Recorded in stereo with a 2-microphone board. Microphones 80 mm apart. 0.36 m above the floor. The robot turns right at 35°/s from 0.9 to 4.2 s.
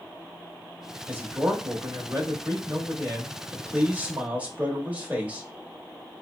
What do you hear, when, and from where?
1.1 s a man speaking: 140° right, 1.0 m; by 5.5 s 30° right, 1.0 m